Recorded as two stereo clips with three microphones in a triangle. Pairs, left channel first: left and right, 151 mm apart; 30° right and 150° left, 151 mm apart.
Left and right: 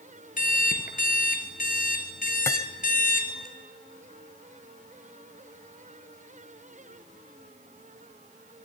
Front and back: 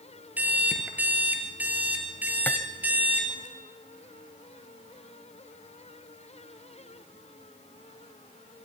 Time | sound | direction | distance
0.4 | an alarm clock | 70° left | 2 m
2.5 | cutlery clinking | 40° left | 0.8 m